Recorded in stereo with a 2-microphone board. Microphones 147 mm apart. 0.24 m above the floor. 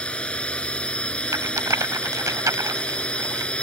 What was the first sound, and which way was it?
A drone, 5° left (ahead or behind).